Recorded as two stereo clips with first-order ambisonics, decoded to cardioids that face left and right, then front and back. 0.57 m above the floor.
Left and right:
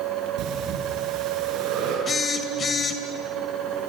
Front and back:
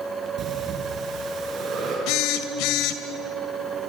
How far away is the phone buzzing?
About 2 m.